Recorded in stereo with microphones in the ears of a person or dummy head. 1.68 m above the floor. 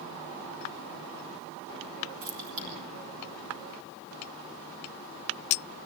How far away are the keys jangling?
About 2.5 m.